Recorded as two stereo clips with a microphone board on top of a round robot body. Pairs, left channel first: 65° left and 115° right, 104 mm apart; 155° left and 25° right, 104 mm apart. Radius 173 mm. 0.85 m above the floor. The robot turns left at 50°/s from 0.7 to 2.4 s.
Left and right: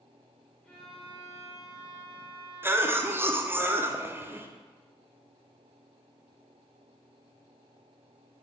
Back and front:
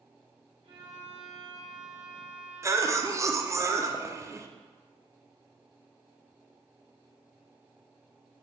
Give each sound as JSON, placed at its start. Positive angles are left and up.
{"t": 0.6, "sound": "a violin", "azimuth_deg": -10, "distance_m": 1.5}
{"t": 2.6, "sound": "a cough", "azimuth_deg": -60, "distance_m": 0.7}